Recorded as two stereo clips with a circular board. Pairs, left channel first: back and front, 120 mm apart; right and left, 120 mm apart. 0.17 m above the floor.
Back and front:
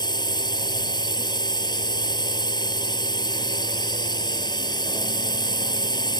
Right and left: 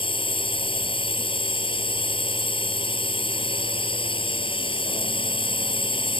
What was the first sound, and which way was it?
A drone, 130° right.